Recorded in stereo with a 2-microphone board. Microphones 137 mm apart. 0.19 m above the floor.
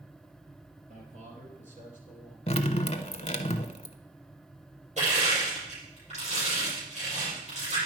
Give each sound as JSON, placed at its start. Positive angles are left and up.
{"t": 0.9, "sound": "a man speaking", "side_deg": -55, "distance_m": 3.5}
{"t": 2.5, "sound": "dripping", "side_deg": 45, "distance_m": 0.7}
{"t": 5.0, "sound": "crushing", "side_deg": -55, "distance_m": 5.0}